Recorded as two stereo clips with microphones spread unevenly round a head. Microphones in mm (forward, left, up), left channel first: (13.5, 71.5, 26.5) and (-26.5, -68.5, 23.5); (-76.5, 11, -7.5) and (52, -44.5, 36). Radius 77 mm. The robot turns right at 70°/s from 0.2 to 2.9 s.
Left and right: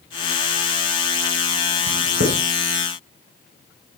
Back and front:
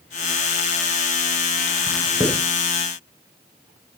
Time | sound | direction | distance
1.9 | writing | 130° right | 4.5 m